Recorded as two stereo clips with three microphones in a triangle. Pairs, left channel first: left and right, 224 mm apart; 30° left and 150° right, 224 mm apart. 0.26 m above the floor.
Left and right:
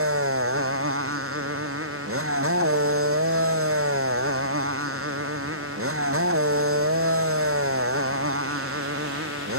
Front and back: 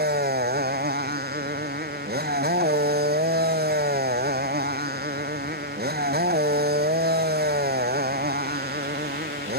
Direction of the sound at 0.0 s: 105° right.